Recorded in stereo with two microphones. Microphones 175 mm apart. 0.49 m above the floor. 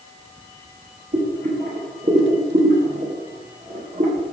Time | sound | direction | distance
1.1 | boiling | 50° right (ahead or behind) | 9 m